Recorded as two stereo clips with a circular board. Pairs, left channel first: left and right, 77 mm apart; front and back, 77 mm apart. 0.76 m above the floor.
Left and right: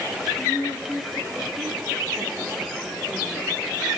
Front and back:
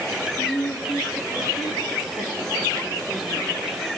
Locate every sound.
0.4 s a woman speaking: 10° left, 2 m; by 4.0 s 35° right, 2.5 m